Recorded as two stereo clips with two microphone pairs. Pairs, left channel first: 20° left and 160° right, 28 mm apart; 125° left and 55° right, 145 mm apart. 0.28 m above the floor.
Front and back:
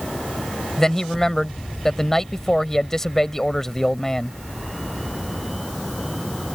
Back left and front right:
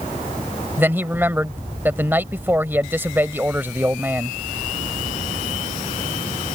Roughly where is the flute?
No flute in this recording.